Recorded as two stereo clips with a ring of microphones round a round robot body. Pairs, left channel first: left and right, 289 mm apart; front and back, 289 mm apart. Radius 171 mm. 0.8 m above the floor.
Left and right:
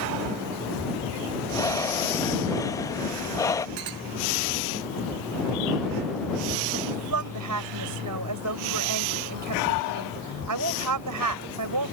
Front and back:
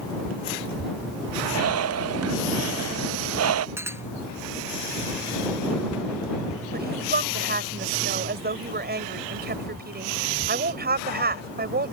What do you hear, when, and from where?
1.5 s breathing: 165° left
3.8 s a clink: 100° right
6.7 s a woman speaking: 125° right